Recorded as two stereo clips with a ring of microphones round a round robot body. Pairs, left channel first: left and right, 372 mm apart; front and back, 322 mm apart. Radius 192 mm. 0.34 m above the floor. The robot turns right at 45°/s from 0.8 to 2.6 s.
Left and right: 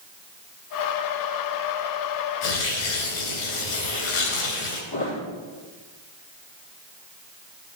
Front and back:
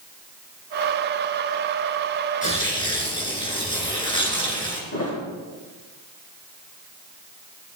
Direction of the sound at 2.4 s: 65° left.